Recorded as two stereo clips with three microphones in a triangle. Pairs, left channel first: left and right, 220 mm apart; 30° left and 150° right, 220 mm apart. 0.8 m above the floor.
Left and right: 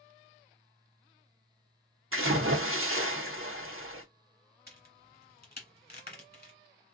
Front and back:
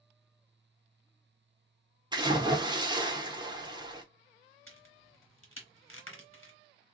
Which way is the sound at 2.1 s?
80° right.